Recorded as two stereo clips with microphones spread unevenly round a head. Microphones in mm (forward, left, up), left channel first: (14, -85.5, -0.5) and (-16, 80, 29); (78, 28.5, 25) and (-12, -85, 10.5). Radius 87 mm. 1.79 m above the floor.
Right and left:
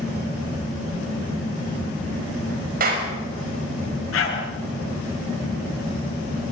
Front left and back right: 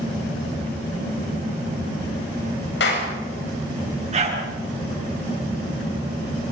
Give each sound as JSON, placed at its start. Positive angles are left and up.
{"t": 2.8, "sound": "a clap", "azimuth_deg": 60, "distance_m": 7.0}
{"t": 4.1, "sound": "a dog barking", "azimuth_deg": -85, "distance_m": 9.5}